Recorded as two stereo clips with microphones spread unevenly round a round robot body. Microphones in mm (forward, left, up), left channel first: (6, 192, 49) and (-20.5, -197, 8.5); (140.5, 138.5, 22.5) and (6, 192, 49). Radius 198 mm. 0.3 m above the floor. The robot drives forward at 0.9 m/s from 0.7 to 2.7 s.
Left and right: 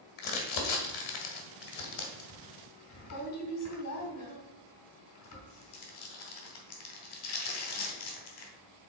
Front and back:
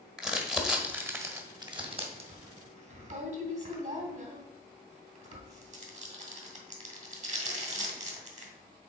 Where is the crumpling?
65° left, 2.0 m; by 8.5 s 135° left, 2 m.